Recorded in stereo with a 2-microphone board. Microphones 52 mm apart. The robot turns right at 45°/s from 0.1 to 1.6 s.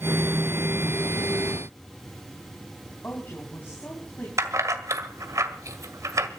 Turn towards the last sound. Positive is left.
turn(degrees=-80)